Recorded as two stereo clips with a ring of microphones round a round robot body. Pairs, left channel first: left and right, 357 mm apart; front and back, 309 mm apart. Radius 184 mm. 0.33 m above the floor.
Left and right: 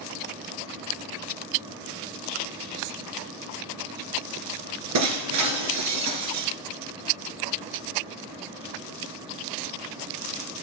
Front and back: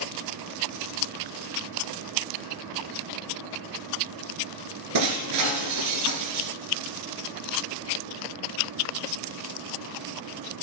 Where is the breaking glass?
135° right, 2 m.